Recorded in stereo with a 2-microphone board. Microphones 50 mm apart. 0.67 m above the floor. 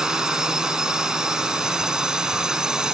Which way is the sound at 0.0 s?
15° right (ahead or behind).